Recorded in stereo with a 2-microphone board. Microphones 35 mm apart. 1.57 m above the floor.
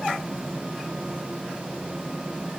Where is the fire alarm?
No fire alarm in this recording.